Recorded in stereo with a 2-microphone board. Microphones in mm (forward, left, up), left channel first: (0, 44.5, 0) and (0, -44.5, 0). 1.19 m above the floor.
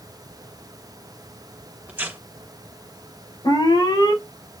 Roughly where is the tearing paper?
Centre.